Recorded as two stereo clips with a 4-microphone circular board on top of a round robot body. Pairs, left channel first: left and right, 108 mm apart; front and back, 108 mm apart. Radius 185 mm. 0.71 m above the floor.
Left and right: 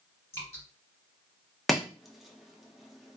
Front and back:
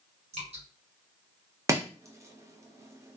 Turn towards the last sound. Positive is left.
turn(degrees=180)